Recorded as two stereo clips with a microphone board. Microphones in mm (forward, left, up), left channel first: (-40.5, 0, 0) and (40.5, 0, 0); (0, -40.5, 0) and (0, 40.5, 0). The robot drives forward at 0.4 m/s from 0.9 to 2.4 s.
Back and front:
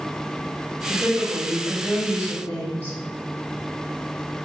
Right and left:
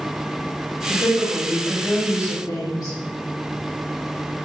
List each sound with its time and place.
0.9 s a woman speaking: 105° right, 1.7 m; by 2.9 s 125° right, 1.9 m